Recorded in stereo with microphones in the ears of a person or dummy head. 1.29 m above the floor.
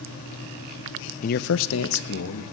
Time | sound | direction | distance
1.2 | a man speaking | 45° left (ahead or behind) | 0.6 m